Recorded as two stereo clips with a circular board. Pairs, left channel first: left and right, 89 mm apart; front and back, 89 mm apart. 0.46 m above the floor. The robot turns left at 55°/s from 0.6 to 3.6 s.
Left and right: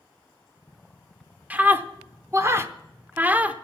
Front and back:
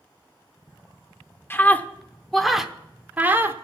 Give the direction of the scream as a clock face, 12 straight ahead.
1 o'clock.